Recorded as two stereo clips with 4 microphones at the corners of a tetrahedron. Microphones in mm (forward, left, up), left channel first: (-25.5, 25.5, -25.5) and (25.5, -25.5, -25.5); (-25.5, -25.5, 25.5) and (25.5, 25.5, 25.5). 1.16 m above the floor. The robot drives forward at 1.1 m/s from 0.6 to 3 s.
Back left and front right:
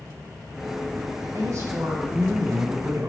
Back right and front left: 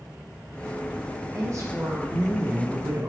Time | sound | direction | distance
1.3 | a woman speaking | straight ahead | 4.5 m